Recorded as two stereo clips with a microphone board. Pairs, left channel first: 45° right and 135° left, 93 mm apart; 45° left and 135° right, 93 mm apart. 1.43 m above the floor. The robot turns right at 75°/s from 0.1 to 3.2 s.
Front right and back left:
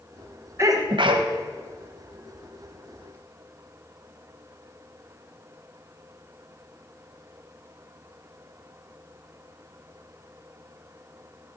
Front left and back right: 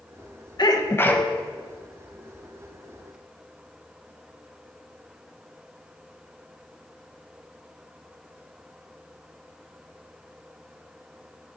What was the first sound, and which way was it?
A sneeze, 80° left.